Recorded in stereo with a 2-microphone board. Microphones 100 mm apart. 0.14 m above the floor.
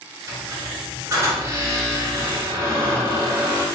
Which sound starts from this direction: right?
A squeak, at 0.3 s.